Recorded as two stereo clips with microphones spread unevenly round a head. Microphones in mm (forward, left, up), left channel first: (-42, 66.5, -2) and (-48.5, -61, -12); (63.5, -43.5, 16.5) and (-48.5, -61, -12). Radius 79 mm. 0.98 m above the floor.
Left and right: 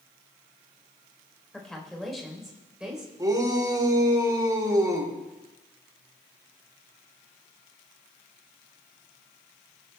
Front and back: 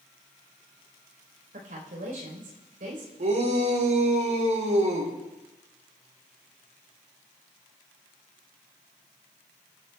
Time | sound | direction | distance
1.5 | a woman speaking | 170° left | 4 m
3.2 | a shout | 155° right | 4 m